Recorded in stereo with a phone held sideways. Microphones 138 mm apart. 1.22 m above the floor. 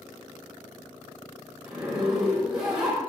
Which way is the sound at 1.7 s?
5° right (ahead or behind).